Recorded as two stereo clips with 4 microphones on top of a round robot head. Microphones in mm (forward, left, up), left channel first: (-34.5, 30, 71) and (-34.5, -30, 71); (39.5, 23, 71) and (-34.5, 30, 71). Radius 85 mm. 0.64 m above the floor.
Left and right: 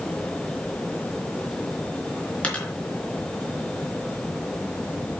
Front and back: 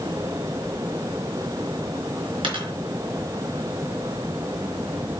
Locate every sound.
2.4 s a dropped coin: 160° left, 3.5 m